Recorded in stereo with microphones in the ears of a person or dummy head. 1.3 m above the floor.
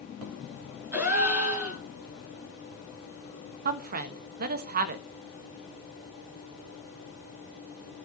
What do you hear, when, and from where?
0.9 s a gasp: 10° right (ahead or behind), 8.5 m
3.6 s a woman speaking: 50° right (ahead or behind), 1.3 m